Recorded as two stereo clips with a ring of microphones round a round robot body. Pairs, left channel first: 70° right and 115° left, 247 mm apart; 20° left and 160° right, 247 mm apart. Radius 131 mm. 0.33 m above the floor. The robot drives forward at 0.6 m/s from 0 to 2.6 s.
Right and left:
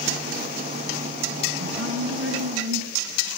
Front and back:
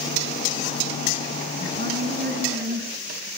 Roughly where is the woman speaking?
Behind left.